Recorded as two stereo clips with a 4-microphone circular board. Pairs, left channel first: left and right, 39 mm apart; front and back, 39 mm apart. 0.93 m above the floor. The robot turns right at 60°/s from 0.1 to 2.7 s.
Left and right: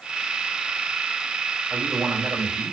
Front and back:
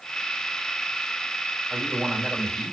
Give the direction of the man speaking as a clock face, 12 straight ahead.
5 o'clock.